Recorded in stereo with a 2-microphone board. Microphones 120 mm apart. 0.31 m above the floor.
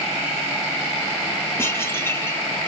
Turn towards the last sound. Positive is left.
turn(degrees=20)  # may be behind; listen again after turning